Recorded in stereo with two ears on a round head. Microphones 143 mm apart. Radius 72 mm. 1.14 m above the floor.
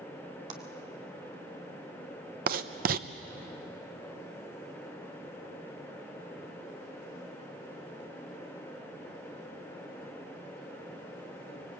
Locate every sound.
0.5 s a clap: 45° right (ahead or behind), 2 m
2.5 s writing: 60° right (ahead or behind), 0.9 m